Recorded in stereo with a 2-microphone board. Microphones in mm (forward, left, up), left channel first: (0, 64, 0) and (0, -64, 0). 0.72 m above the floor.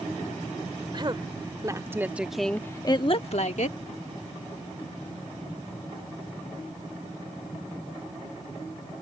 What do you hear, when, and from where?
0.9 s a woman speaking: 40° right (ahead or behind); by 3.8 s 70° left (ahead or behind)